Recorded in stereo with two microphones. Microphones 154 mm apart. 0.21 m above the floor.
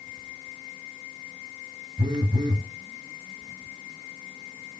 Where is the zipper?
I don't hear a zipper.